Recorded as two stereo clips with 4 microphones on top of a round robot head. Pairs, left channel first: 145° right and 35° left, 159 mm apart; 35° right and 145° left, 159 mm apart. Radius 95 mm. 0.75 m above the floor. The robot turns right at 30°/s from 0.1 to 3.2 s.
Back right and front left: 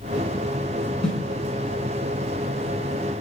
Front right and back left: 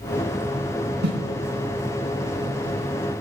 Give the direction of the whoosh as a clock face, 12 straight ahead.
8 o'clock.